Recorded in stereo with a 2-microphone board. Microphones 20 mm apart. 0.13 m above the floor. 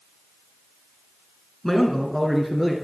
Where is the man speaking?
20° left (ahead or behind), 1.3 m; by 2.8 s centre (ahead or behind), 2.0 m.